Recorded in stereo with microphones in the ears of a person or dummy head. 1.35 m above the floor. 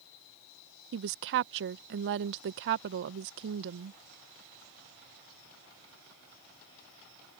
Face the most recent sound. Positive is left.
turn(degrees=-65)  # may be behind; listen again after turning